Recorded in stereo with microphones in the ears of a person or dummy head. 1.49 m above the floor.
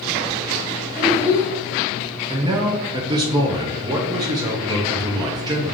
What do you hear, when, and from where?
0.9 s a child speaking: 15° left (ahead or behind), 1.7 m
2.3 s a man speaking: 20° right (ahead or behind), 0.5 m